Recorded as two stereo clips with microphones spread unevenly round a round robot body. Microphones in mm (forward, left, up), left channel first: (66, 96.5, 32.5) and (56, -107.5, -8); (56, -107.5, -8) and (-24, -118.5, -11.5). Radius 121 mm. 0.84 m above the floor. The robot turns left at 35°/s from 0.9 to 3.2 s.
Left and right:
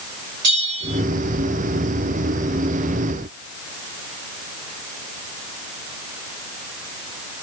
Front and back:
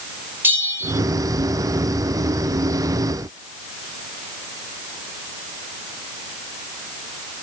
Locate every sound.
0.4 s a bell: 110° right, 5 m